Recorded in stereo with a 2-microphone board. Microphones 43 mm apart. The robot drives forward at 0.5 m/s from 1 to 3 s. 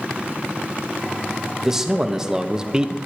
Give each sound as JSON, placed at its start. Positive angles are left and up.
{"t": 1.6, "sound": "a man speaking", "side_deg": -10, "distance_m": 1.4}